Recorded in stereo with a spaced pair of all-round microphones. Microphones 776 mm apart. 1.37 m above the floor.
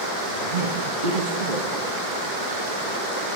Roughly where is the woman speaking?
Right.